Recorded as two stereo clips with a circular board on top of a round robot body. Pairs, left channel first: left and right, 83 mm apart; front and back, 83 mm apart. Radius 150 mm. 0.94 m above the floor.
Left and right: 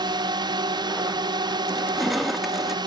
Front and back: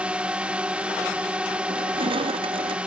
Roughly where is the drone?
Right.